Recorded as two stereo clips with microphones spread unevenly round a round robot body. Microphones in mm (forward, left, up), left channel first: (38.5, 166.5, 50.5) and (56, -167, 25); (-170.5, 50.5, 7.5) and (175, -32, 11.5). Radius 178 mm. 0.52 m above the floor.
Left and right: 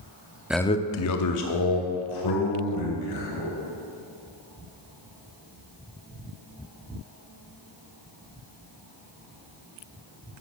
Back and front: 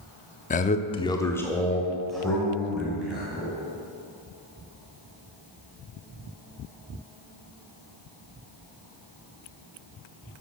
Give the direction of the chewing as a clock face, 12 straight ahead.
No chewing in this recording.